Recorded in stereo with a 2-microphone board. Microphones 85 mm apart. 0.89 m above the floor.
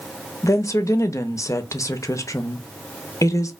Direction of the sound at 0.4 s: 40° left (ahead or behind).